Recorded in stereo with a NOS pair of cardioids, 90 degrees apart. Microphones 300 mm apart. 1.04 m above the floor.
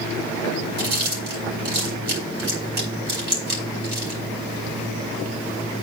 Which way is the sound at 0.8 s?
35° right.